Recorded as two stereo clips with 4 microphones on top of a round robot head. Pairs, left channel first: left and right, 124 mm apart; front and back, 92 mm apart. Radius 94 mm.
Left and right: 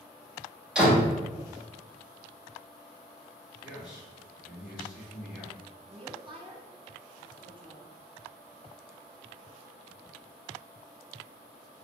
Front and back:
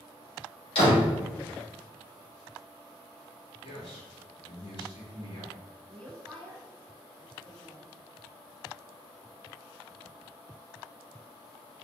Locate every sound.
0.8 s a door slam: 5° right, 2 m
3.6 s a man speaking: 5° right, 2.0 m
5.9 s a woman speaking: 80° right, 1.1 m